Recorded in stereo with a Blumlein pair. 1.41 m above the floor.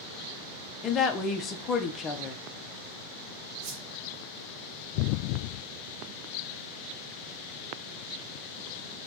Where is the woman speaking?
30° left, 0.6 m.